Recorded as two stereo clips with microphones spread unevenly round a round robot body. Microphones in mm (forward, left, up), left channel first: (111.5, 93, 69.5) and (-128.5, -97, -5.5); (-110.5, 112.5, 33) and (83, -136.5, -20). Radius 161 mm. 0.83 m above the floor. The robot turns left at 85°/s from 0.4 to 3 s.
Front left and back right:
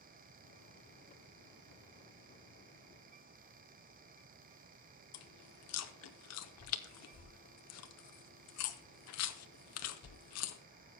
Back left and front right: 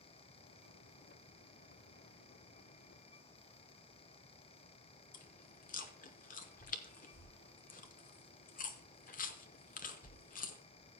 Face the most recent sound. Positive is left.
turn(degrees=70)